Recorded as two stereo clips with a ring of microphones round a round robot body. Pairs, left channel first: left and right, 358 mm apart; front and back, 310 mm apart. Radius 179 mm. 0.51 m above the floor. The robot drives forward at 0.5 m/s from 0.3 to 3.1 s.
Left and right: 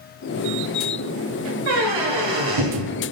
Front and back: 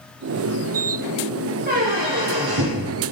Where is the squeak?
110° right, 2.5 m; by 2.9 s 125° right, 2.5 m.